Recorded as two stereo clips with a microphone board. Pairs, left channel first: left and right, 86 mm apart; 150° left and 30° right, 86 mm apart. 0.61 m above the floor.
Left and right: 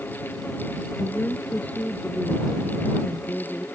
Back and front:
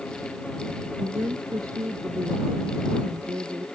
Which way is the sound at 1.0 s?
15° left.